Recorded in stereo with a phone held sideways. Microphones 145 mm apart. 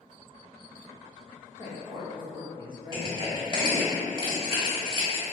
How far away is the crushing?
About 1.4 m.